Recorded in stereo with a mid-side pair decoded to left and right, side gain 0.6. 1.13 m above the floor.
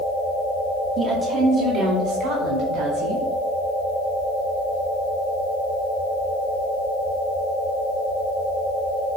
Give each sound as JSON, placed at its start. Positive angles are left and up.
{"t": 1.0, "sound": "a woman speaking", "azimuth_deg": -55, "distance_m": 1.6}